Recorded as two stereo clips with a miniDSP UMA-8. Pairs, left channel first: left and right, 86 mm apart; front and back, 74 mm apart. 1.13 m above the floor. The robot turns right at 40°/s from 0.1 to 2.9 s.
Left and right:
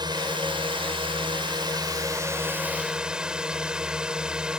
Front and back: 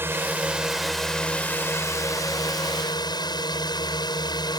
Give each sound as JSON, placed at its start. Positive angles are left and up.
{"t": 0.0, "sound": "a drone", "azimuth_deg": -120}